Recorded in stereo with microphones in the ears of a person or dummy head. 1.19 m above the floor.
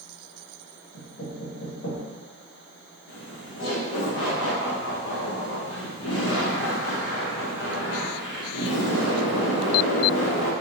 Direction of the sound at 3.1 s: 65° left (ahead or behind).